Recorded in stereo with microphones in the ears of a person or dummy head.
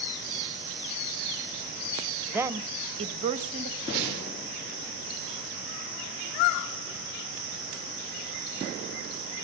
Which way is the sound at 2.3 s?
10° right (ahead or behind).